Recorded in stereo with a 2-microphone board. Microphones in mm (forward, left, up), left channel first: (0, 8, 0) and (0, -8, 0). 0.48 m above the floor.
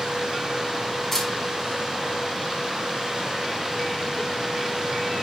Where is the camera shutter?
15° left (ahead or behind), 4 m.